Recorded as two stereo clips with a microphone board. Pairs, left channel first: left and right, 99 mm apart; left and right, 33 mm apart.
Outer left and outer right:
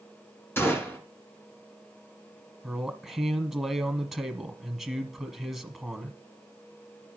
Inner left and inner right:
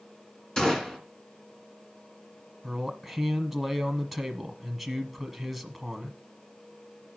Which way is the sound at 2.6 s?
Centre (ahead or behind).